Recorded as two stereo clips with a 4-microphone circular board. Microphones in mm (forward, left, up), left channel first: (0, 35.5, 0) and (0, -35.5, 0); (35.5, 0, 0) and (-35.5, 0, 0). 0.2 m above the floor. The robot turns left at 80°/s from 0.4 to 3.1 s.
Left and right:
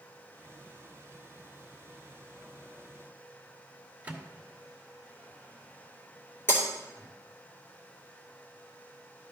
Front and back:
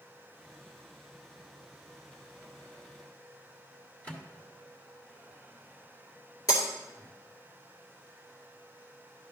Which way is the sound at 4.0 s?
45° right.